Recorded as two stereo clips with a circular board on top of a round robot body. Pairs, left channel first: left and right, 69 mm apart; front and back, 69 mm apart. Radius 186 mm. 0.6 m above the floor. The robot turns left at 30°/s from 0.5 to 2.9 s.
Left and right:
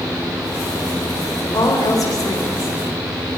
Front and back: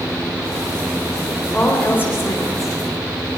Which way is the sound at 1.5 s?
75° left.